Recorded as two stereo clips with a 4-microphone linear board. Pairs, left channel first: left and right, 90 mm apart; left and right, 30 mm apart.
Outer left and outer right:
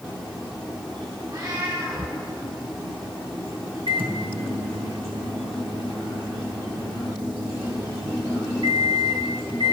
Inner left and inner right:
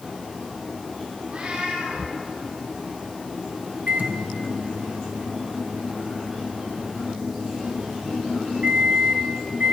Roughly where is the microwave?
Right.